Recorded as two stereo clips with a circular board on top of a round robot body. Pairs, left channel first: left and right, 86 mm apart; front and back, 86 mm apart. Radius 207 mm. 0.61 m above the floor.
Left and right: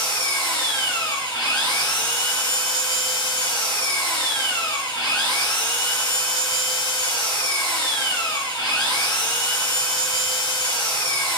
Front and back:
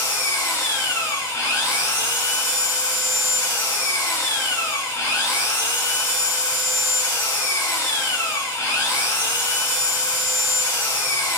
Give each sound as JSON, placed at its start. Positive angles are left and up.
{"t": 0.0, "sound": "an engine running", "azimuth_deg": 60, "distance_m": 1.7}